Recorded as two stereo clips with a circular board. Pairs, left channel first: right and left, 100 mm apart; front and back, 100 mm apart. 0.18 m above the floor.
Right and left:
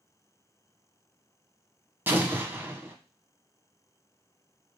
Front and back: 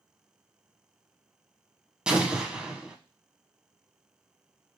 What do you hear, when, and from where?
2.1 s an explosion: 115° left, 0.6 m